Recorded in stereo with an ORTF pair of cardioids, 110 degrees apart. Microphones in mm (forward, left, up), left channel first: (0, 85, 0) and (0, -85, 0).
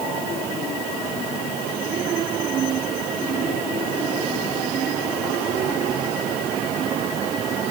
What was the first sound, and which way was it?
Only background noise.